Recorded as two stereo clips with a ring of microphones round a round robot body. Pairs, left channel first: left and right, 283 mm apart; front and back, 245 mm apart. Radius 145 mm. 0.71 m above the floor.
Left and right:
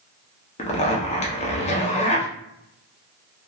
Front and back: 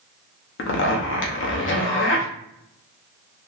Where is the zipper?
25° left, 0.7 m.